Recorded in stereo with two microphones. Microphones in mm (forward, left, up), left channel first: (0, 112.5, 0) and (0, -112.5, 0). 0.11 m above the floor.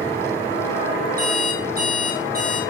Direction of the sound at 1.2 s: 40° right (ahead or behind).